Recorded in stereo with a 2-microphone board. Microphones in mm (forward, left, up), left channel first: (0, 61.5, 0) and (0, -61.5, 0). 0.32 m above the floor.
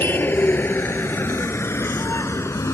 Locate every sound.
0.0 s a vehicle: 15° left (ahead or behind); by 2.8 s 25° left (ahead or behind)